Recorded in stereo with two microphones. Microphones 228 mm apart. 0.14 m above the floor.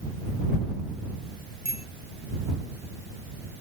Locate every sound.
1.6 s a bicycle bell: 40° right (ahead or behind)